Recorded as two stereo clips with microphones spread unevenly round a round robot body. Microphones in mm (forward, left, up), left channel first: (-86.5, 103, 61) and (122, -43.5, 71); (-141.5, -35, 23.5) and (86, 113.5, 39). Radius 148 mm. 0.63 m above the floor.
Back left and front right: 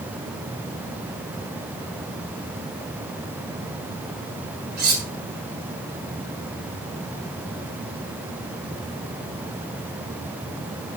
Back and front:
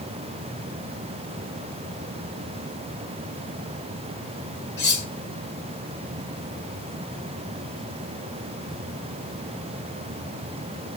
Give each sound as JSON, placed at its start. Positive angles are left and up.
{"t": 4.8, "sound": "cutlery clinking", "azimuth_deg": -90, "distance_m": 4.0}